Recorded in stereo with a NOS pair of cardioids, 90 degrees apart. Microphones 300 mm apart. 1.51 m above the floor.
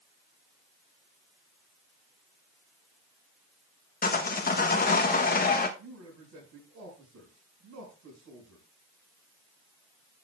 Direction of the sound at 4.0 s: 30° left.